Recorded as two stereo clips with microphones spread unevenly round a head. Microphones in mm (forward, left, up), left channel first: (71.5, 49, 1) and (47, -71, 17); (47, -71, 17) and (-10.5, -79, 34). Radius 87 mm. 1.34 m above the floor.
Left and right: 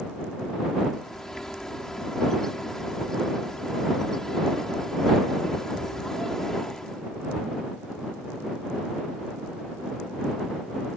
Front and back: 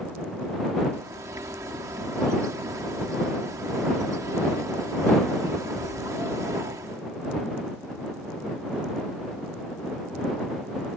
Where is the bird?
170° left.